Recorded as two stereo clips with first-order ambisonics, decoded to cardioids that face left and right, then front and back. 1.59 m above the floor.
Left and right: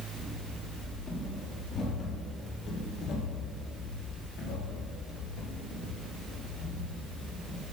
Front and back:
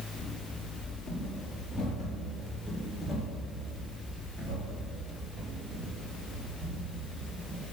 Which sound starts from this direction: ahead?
Running footsteps, at 0.2 s.